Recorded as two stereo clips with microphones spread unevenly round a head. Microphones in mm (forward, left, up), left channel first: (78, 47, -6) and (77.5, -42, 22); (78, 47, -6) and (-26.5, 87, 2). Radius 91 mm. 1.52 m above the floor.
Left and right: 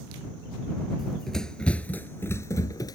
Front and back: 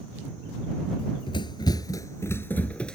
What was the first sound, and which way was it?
Running footsteps, 25° right.